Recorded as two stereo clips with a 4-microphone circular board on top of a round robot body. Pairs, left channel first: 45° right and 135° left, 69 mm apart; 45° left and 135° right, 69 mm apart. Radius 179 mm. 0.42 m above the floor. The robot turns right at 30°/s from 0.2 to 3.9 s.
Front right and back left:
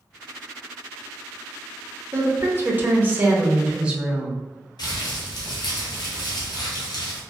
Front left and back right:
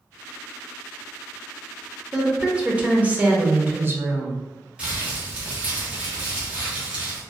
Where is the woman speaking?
150° left, 0.9 m; by 4.4 s 160° right, 0.9 m.